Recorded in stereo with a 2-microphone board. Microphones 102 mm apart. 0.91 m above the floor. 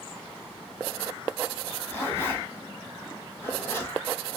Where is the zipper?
25° left (ahead or behind), 1.3 m.